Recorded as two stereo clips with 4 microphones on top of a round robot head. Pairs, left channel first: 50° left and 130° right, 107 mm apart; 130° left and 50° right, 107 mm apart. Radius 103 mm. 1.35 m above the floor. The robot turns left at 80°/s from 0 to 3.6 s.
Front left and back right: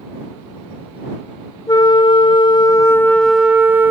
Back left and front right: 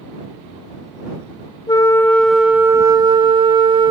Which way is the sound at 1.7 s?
90° left.